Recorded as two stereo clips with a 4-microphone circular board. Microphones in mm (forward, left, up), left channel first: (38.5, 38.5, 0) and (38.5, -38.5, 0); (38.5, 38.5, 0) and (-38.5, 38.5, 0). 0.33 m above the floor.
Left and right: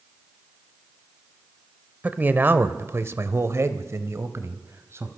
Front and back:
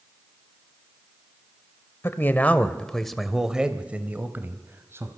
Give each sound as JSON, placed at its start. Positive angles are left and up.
{"t": 2.0, "sound": "a man speaking", "azimuth_deg": -35, "distance_m": 1.2}